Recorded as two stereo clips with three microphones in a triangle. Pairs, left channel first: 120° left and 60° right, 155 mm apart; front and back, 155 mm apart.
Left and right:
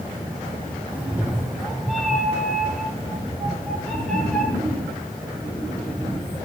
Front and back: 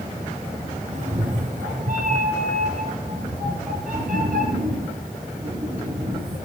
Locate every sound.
0.9 s a cat meowing: 140° right, 1.7 m; by 6.4 s 160° right, 7 m